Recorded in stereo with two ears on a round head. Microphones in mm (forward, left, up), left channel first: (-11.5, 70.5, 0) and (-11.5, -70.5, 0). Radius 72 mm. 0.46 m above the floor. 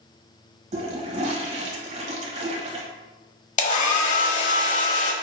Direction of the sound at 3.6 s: 45° left (ahead or behind).